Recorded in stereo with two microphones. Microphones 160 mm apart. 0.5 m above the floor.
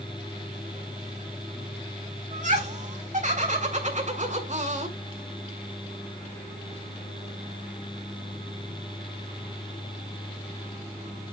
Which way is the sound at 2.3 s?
50° right (ahead or behind).